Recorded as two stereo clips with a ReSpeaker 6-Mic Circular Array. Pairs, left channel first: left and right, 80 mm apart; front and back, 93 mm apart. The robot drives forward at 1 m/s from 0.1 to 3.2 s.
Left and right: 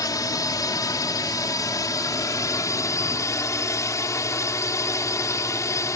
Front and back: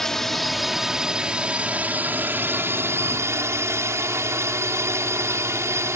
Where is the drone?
85° left; by 6.0 s 130° left.